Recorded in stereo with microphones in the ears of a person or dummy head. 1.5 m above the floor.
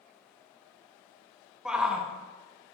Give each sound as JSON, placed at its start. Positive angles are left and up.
{"t": 1.6, "sound": "a shout", "side_deg": -5, "distance_m": 0.9}